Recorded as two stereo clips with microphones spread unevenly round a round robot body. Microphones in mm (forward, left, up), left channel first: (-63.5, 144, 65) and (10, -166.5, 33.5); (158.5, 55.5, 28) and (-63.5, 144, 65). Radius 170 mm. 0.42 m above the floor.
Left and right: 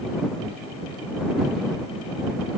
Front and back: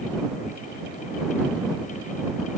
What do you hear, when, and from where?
Only background noise.